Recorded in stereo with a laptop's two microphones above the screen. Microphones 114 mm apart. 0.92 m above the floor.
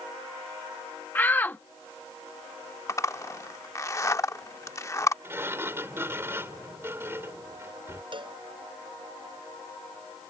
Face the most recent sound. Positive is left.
turn(degrees=-50)  # may be behind; listen again after turning